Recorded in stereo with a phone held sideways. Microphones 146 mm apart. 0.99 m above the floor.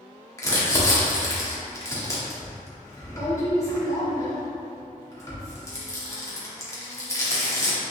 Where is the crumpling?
20° left (ahead or behind), 1.7 m.